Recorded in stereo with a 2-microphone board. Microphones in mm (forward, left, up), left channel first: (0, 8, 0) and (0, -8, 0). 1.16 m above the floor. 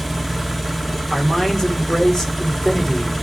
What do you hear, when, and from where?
0.0 s an engine running: 5° left (ahead or behind), 1.5 m
1.1 s a man speaking: 30° left (ahead or behind), 3 m